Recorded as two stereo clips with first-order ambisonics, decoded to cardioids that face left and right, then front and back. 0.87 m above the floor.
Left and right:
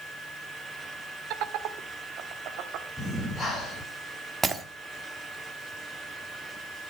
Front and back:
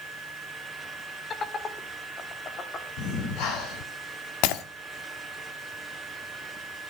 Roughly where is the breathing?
Ahead.